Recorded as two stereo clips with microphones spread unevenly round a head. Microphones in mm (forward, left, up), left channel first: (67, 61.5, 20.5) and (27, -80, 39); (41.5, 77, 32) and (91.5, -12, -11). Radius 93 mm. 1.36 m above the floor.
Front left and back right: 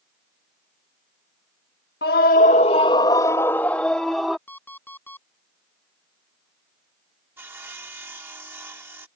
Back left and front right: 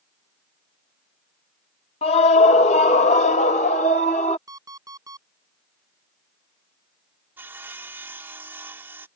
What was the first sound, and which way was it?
A scream, 110° left.